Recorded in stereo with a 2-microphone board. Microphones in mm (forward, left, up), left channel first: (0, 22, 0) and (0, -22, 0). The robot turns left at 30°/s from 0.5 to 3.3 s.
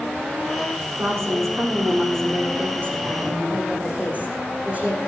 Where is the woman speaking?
75° right, 7 m; by 5.0 s 145° right, 7 m.